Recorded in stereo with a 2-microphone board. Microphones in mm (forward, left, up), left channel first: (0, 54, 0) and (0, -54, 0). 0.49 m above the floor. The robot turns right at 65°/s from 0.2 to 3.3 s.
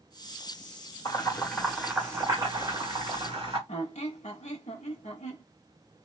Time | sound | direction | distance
1.1 | boiling | 30° left (ahead or behind) | 1.7 m
3.7 | a squeak | 85° left | 0.7 m